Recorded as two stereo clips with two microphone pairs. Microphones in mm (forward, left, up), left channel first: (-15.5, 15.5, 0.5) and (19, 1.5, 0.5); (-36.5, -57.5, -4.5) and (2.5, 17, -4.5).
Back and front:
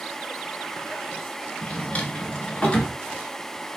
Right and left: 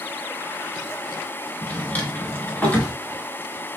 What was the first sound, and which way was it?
A drawer, 170° right.